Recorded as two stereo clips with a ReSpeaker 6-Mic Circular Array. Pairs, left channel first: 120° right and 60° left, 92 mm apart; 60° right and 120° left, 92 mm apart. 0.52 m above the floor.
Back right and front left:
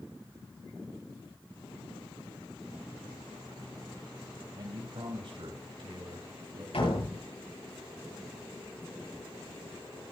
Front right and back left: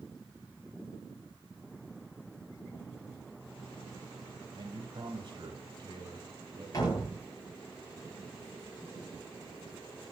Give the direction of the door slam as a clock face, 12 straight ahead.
4 o'clock.